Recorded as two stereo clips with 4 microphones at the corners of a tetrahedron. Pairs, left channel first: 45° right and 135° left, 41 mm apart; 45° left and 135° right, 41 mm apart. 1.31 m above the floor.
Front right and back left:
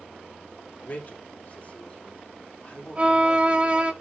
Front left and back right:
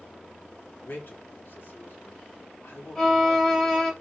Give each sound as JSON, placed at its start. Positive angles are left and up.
{"t": 0.8, "sound": "a man speaking", "azimuth_deg": 5, "distance_m": 2.5}
{"t": 3.0, "sound": "a violin", "azimuth_deg": 105, "distance_m": 1.2}